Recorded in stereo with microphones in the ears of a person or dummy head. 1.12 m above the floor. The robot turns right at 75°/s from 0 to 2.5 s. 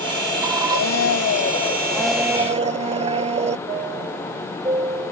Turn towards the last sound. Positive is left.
turn(degrees=-20)  # may be behind; listen again after turning